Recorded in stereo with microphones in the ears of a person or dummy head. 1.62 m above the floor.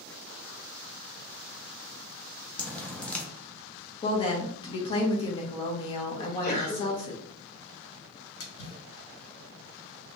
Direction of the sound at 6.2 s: 60° left (ahead or behind).